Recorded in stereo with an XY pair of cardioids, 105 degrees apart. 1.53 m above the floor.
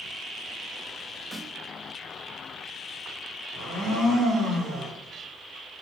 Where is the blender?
70° right, 2 m.